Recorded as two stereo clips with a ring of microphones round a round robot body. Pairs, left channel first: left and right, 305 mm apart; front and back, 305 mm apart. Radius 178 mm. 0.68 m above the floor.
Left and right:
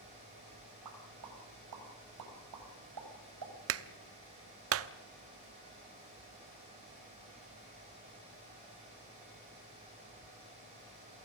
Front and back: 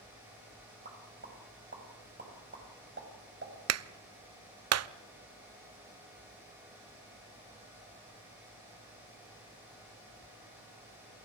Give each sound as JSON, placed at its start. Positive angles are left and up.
{"t": 0.8, "sound": "a pop", "azimuth_deg": -125, "distance_m": 5.0}
{"t": 3.7, "sound": "a clap", "azimuth_deg": -140, "distance_m": 0.8}